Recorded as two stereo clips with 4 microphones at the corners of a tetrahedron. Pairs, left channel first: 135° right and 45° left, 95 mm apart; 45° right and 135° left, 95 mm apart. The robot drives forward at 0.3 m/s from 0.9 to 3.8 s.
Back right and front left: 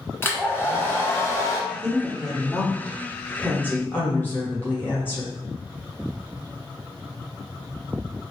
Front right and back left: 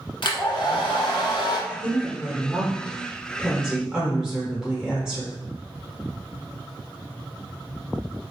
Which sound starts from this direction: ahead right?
A woman speaking, at 1.7 s.